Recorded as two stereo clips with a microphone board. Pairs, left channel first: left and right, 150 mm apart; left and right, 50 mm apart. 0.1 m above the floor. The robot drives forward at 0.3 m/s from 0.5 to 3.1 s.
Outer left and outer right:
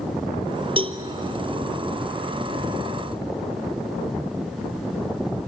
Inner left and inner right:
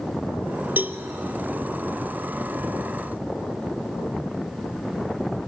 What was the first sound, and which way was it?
A cowbell, 40° right (ahead or behind).